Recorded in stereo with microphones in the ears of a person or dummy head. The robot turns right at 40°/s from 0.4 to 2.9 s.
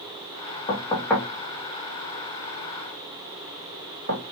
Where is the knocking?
30° left (ahead or behind), 2.0 m; by 4.2 s 60° right (ahead or behind), 2.0 m.